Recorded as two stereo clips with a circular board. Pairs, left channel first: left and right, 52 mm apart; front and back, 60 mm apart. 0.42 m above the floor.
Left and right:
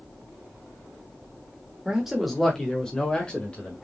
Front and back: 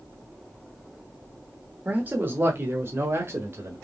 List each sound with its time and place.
1.9 s a man speaking: 155° right, 1.1 m; by 3.8 s 150° left, 1.9 m